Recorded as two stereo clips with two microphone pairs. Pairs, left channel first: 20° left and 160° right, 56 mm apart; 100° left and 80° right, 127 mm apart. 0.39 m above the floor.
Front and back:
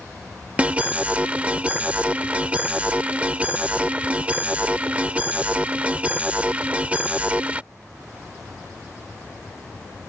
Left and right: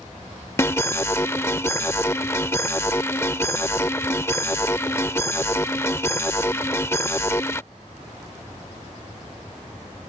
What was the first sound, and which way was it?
An alarm, 160° left.